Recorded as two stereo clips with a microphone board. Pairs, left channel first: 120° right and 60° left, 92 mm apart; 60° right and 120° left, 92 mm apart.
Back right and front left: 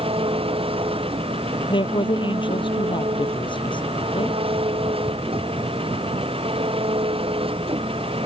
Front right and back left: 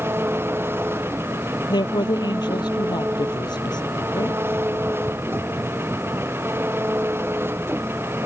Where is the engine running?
55° left.